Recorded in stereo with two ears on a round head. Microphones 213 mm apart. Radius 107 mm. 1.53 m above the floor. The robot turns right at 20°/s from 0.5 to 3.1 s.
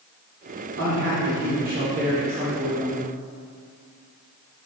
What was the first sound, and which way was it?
A man speaking, 60° right.